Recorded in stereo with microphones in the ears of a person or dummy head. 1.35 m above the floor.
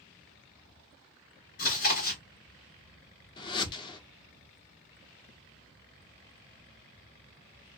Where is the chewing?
40° left (ahead or behind), 1.3 m.